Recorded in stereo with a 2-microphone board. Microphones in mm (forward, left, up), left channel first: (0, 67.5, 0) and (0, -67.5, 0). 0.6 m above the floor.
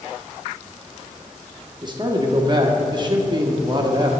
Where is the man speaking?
30° right (ahead or behind), 1.1 m.